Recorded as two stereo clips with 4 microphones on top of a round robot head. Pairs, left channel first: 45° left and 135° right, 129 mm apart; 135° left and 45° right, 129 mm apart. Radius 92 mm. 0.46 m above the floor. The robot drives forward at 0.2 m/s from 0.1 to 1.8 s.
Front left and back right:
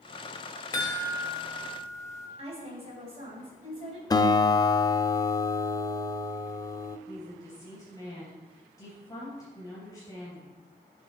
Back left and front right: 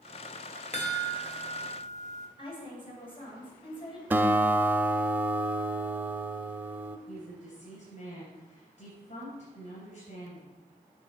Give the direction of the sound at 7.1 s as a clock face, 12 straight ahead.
8 o'clock.